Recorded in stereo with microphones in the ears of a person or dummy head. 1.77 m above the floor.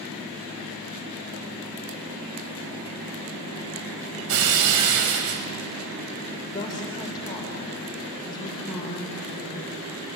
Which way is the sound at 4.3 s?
65° right (ahead or behind).